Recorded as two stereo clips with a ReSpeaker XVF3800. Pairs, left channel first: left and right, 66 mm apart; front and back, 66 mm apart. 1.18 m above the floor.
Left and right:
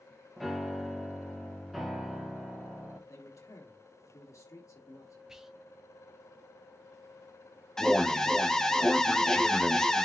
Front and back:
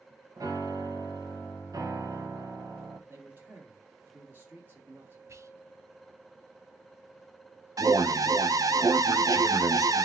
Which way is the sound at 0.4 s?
Straight behind.